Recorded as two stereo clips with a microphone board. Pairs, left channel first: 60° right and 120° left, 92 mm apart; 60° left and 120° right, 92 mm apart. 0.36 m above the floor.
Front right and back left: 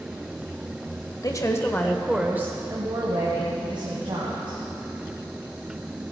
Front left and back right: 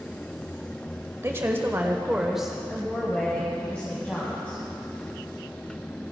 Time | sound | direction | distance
1.2 | a woman speaking | 75° right | 1.2 m